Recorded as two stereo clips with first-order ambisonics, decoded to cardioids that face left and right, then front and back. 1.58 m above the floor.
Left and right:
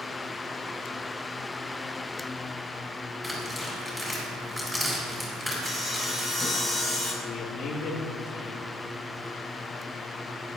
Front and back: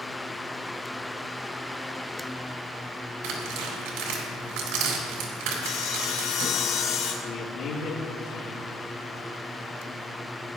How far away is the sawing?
About 2.5 m.